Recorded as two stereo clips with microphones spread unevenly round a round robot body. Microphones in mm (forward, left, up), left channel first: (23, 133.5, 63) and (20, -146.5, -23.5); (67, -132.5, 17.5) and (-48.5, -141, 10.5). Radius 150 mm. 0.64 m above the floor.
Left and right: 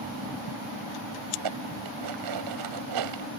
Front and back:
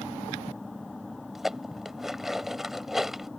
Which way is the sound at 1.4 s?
90° right.